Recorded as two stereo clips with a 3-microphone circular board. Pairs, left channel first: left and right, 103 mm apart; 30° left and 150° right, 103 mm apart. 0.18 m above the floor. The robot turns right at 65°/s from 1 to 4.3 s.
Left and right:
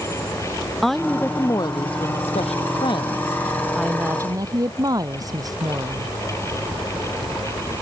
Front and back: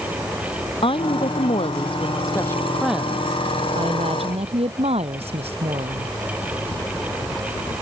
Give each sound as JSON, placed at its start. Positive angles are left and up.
{"t": 0.8, "sound": "a woman speaking", "azimuth_deg": 0}